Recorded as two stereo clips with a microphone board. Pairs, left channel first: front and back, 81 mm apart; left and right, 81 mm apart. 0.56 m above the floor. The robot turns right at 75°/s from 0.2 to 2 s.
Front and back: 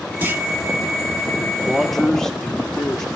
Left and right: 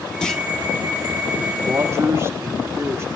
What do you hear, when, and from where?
0.2 s a clunk: 160° left, 1.0 m; by 0.4 s 175° left, 1.0 m
1.6 s a man speaking: 105° right, 1.5 m; by 3.0 s 80° right, 1.5 m